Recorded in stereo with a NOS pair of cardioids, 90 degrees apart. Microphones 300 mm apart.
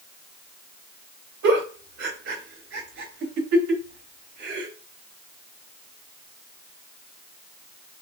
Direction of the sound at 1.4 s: 65° right.